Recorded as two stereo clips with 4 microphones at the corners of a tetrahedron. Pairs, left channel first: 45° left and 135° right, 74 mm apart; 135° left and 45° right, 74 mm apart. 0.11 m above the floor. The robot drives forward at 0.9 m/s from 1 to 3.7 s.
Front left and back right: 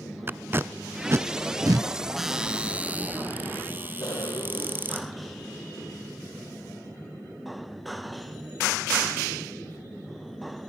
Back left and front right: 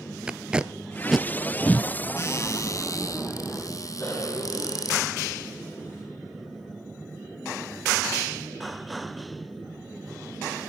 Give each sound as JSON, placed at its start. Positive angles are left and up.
{"t": 0.3, "sound": "tape being pulled", "azimuth_deg": -110, "distance_m": 0.5}
{"t": 2.2, "sound": "a cupboard door", "azimuth_deg": 140, "distance_m": 1.0}
{"t": 4.0, "sound": "a cough", "azimuth_deg": 65, "distance_m": 6.0}